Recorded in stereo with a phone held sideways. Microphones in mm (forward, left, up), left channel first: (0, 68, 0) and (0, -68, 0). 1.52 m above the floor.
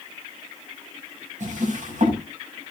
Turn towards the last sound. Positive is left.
turn(degrees=-65)  # may be behind; listen again after turning